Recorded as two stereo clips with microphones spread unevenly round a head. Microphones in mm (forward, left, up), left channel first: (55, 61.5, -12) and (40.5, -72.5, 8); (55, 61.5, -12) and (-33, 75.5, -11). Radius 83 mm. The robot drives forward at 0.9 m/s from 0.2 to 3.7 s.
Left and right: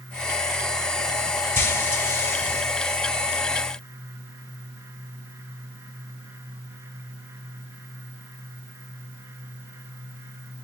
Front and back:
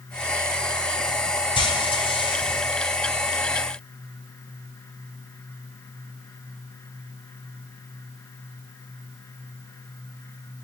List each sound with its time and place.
1.6 s frying: 15° left, 6 m